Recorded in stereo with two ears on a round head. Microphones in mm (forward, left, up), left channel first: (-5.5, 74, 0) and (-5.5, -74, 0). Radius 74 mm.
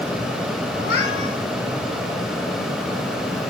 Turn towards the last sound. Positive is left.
turn(degrees=80)